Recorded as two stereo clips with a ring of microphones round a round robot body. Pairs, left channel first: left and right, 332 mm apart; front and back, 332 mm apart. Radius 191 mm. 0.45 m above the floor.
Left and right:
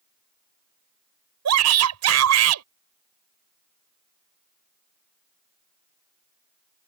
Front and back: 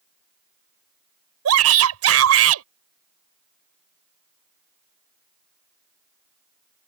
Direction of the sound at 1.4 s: 135° right.